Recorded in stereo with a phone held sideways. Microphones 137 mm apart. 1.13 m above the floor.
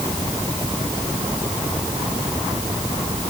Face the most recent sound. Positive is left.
No sound to turn to.